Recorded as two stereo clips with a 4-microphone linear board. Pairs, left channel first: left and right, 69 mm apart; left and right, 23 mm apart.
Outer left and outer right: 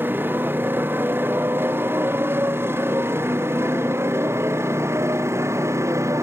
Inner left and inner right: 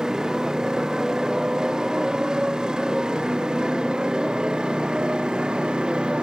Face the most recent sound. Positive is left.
turn(degrees=-40)  # may be behind; listen again after turning